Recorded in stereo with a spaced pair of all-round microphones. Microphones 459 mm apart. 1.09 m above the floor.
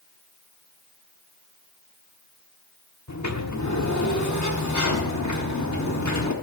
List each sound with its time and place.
3.1 s a sliding door: 40° left (ahead or behind), 1.0 m